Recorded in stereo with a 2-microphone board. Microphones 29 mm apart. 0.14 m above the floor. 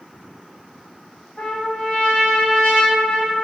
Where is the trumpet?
45° left (ahead or behind), 1.8 m.